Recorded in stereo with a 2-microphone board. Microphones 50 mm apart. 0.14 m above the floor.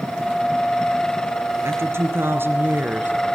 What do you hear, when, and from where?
1.6 s a woman speaking: 55° right (ahead or behind), 3 m; by 3.1 s 40° right (ahead or behind), 2 m